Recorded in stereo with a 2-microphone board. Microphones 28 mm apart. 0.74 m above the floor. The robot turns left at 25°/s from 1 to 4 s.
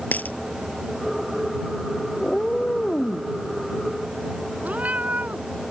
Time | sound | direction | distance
0.1 | a dropped coin | 75° left (ahead or behind) | ?
2.2 | a cat meowing | 25° left (ahead or behind) | ?
4.6 | a cat meowing | 65° right (ahead or behind) | ?